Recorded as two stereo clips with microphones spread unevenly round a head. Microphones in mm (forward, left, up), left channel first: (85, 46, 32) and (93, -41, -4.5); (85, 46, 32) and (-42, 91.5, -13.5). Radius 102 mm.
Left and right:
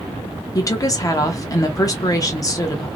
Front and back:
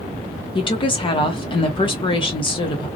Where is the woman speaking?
40° left, 0.7 m.